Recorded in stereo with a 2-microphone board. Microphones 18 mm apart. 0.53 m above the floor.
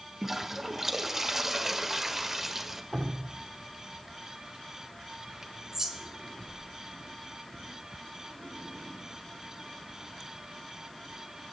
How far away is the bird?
About 4 m.